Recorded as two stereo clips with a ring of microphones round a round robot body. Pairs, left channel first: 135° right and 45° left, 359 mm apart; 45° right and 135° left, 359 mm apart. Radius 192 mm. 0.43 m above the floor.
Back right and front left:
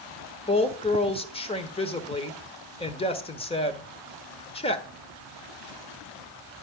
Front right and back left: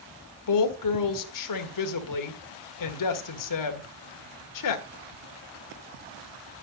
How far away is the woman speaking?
About 1.5 m.